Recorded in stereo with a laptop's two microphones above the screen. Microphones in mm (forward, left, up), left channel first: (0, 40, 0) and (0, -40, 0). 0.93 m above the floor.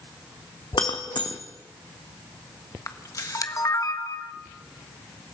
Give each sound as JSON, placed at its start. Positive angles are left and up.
{"t": 0.7, "sound": "breaking glass", "side_deg": 65, "distance_m": 2.0}
{"t": 2.9, "sound": "a camera shutter", "side_deg": 45, "distance_m": 1.3}